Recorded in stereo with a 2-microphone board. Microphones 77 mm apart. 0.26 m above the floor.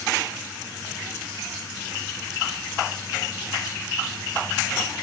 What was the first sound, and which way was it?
Only background noise.